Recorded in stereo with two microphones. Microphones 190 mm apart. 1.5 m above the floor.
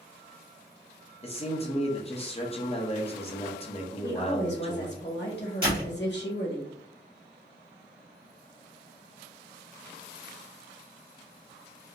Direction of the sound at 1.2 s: 30° left (ahead or behind).